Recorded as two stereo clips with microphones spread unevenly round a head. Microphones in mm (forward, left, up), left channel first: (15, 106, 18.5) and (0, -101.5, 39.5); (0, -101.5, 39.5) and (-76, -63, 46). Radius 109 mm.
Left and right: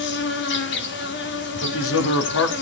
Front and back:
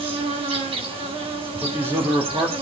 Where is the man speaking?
80° left, 2.5 m.